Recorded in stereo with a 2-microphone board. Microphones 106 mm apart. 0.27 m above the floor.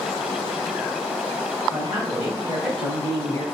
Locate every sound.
1.7 s a woman speaking: 45° right (ahead or behind), 2.0 m; by 3.4 s 35° left (ahead or behind), 1.5 m